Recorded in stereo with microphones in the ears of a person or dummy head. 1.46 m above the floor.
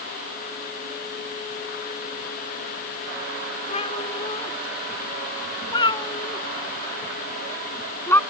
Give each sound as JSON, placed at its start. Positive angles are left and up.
{"t": 3.7, "sound": "a cat meowing", "side_deg": 35}